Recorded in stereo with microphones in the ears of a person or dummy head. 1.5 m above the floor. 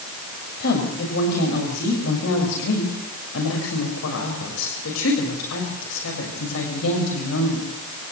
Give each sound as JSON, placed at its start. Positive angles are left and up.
{"t": 0.6, "sound": "a woman speaking", "side_deg": 60, "distance_m": 6.5}